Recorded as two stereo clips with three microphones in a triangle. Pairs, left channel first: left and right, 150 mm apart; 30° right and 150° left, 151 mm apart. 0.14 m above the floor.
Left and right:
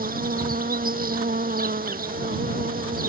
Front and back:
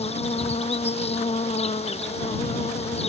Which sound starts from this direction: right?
An insect, at 0.0 s.